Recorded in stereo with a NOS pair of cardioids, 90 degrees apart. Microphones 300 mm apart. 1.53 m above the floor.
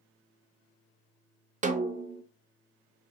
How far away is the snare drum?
About 0.8 m.